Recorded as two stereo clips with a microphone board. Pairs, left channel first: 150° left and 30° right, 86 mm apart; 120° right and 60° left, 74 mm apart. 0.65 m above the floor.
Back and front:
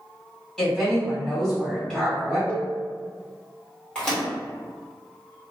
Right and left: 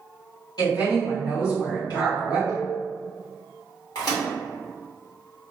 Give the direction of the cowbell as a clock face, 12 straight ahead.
9 o'clock.